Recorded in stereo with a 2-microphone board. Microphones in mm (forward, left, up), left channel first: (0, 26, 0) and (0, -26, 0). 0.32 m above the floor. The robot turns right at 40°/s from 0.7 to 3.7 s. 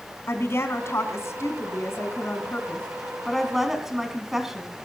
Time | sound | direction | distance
0.3 | a woman speaking | 70° left | 2.5 m